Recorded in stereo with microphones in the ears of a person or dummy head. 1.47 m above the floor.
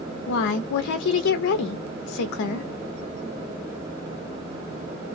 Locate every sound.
0.3 s a woman speaking: 65° left (ahead or behind), 0.5 m